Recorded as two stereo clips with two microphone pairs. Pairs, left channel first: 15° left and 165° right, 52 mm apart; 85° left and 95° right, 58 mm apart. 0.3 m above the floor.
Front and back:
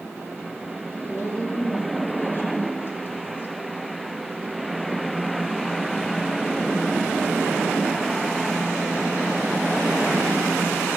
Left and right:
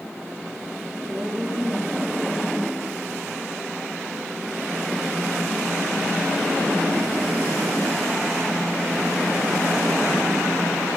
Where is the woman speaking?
30° right, 5.5 m.